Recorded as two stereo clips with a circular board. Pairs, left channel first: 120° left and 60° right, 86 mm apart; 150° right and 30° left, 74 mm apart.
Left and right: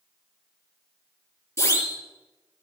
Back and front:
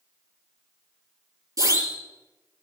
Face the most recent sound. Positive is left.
turn(degrees=65)